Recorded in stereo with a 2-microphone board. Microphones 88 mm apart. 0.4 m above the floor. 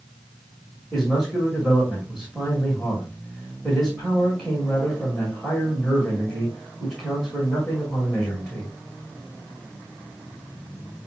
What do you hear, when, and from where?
0.9 s a man speaking: 5° left (ahead or behind), 2 m